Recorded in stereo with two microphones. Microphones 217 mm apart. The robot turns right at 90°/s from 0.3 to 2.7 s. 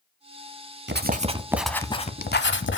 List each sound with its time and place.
0.9 s writing: 70° right, 0.7 m; by 2.8 s 95° left, 0.7 m